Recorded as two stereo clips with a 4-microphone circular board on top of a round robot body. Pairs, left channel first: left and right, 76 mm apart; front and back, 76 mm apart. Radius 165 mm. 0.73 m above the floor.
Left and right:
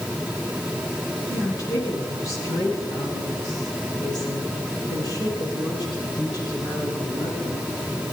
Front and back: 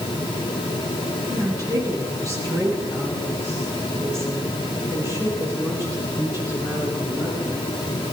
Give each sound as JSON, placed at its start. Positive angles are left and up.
{"t": 1.3, "sound": "a woman speaking", "azimuth_deg": 140, "distance_m": 9.5}